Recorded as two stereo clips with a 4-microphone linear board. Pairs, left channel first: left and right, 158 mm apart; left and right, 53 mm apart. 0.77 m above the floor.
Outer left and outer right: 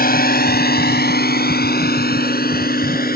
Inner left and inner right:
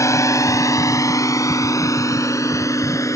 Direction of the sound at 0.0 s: 70° left (ahead or behind).